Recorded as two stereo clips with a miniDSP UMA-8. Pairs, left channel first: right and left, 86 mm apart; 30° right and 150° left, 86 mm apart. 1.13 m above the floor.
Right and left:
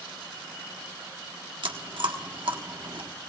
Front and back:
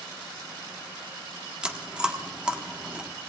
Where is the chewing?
70° left, 1.4 m.